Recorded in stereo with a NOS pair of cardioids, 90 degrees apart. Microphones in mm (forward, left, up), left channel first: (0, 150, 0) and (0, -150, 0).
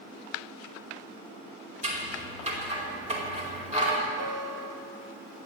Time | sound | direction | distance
1.8 | scissors | 25° right | 4.5 m
4.2 | a guitar | 60° right | 1.7 m